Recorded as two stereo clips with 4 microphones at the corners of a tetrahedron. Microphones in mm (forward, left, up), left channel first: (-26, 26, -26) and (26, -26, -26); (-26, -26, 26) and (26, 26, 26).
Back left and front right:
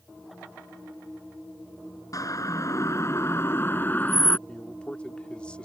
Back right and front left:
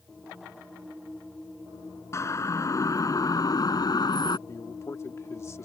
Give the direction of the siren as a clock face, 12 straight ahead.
6 o'clock.